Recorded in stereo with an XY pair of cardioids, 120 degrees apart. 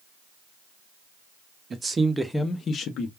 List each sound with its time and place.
1.7 s a man speaking: 35° right, 0.9 m; by 3.1 s 70° left, 0.9 m